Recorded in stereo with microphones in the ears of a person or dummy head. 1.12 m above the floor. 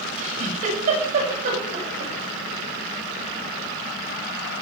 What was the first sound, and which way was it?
A giggle, 45° right (ahead or behind).